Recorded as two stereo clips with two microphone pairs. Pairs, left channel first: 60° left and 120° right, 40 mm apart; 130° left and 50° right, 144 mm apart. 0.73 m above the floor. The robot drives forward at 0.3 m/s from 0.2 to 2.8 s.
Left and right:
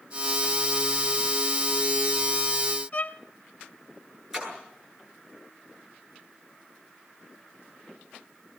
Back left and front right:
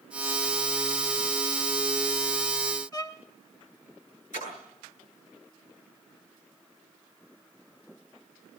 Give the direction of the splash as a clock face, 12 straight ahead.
7 o'clock.